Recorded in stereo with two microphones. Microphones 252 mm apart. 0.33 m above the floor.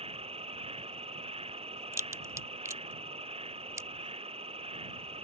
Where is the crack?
10° right (ahead or behind).